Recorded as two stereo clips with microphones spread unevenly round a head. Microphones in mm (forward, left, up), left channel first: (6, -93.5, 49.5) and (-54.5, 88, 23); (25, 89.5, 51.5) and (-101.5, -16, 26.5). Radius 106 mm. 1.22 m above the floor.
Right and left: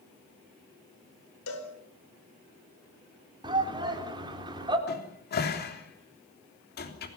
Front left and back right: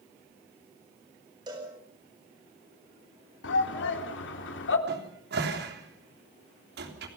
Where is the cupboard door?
110° right, 3.5 m.